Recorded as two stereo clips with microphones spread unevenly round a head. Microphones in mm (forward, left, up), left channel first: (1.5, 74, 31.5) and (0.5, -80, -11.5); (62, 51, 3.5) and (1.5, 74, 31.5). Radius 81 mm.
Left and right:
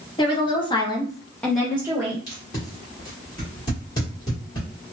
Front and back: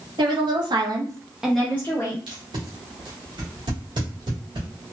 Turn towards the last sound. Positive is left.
turn(degrees=160)